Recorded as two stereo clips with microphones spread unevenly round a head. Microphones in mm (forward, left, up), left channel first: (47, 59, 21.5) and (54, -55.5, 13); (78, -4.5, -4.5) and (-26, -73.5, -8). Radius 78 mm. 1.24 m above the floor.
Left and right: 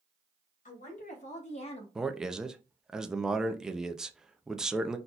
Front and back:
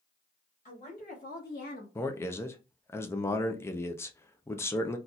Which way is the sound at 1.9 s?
15° right.